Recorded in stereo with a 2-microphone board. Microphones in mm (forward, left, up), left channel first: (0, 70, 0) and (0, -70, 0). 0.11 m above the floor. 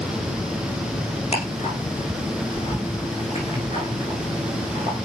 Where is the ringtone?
No ringtone in this recording.